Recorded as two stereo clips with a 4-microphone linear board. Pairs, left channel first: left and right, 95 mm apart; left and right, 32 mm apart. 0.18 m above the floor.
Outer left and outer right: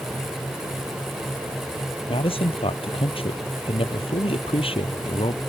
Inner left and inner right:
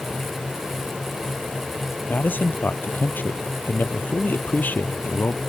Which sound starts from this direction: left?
A man speaking, at 2.1 s.